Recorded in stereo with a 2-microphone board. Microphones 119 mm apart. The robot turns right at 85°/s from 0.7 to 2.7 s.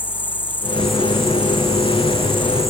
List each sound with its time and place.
0.0 s an insect: 165° left, 0.8 m; by 2.7 s 25° right, 0.8 m